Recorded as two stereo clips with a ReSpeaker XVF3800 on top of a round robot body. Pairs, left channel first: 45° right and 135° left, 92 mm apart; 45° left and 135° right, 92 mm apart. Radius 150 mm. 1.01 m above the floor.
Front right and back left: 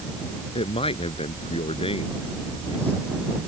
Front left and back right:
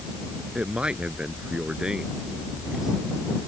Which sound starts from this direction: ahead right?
A man speaking, at 0.6 s.